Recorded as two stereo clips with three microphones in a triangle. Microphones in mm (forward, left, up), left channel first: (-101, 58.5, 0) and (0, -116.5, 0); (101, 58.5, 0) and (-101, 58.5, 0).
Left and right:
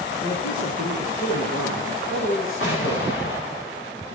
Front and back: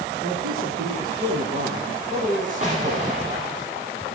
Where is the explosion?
125° left, 6 m.